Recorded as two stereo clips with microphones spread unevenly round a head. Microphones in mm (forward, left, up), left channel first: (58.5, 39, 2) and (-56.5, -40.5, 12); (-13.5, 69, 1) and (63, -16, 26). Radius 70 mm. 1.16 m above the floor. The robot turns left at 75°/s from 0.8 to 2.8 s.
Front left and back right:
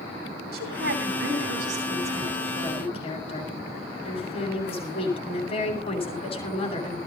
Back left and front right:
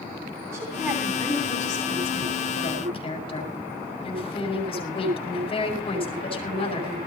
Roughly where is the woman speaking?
Behind right.